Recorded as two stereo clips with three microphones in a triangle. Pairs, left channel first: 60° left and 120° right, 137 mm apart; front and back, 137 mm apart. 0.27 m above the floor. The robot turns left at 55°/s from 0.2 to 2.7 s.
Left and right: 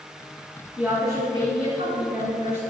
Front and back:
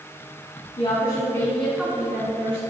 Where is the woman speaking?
40° right, 3 m; by 2.6 s 140° right, 3 m.